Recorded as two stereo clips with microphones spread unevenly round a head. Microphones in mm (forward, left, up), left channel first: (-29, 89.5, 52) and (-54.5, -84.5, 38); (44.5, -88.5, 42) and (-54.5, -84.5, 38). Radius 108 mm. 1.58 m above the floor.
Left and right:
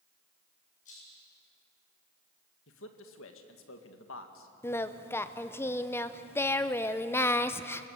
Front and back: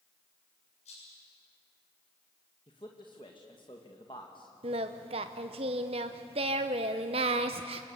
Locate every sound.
0.8 s a rattle: 30° left, 8 m
2.7 s a man speaking: 60° left, 1.9 m
4.6 s singing: 155° left, 0.6 m